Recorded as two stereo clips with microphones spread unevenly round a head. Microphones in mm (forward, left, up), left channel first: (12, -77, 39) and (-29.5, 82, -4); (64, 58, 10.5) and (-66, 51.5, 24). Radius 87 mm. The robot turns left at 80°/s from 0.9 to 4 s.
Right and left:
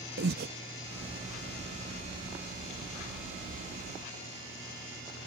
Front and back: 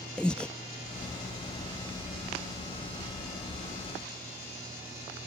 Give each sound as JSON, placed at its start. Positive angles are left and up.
{"t": 0.2, "sound": "breathing", "azimuth_deg": 90}